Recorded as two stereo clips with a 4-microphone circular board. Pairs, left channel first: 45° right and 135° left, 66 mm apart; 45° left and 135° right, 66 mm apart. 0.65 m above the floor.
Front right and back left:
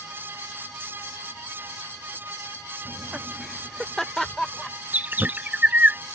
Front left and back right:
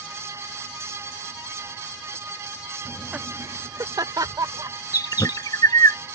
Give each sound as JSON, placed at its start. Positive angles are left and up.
{"t": 2.9, "sound": "laughter", "azimuth_deg": 105}
{"t": 4.9, "sound": "a bird", "azimuth_deg": 70}